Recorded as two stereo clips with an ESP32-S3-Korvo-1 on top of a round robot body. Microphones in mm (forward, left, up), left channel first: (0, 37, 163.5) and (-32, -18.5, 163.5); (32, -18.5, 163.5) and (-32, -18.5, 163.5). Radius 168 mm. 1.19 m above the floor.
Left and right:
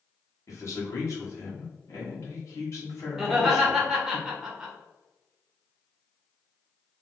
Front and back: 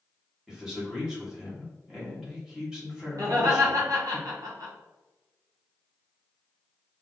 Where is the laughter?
155° left, 1.7 m.